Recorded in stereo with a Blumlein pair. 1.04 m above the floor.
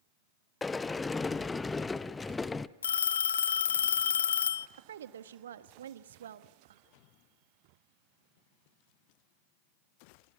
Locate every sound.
0.6 s a sliding door: 15° left, 0.6 m
2.8 s a phone ringing: 65° left, 0.6 m
4.8 s a woman speaking: 65° right, 1.2 m